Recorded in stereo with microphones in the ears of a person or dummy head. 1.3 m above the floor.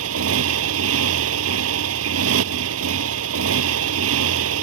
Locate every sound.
0.0 s a motorcycle: 85° right